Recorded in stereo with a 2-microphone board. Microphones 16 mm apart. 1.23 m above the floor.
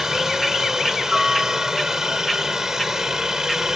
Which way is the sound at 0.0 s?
25° right (ahead or behind).